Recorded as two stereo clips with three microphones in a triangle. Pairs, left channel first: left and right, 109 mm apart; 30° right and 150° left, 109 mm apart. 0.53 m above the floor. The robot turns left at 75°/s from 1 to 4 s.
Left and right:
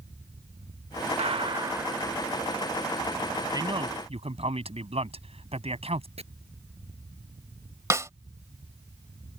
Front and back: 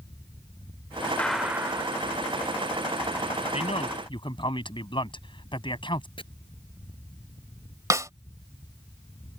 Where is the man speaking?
35° right; by 6.1 s 70° right.